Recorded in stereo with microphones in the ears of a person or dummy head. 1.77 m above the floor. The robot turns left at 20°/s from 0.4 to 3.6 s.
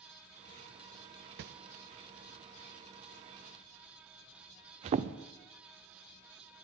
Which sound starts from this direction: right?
A whoosh, at 1.4 s.